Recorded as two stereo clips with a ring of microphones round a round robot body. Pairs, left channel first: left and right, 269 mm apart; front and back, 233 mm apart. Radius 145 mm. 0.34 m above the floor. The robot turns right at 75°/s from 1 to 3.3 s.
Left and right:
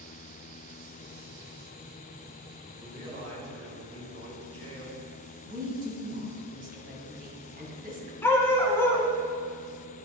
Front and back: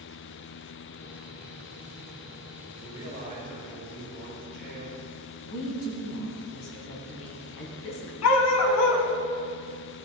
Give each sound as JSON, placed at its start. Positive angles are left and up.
{"t": 2.7, "sound": "a man speaking", "azimuth_deg": -170, "distance_m": 3.0}
{"t": 5.5, "sound": "a woman speaking", "azimuth_deg": -30, "distance_m": 2.5}
{"t": 8.2, "sound": "a dog barking", "azimuth_deg": 10, "distance_m": 1.0}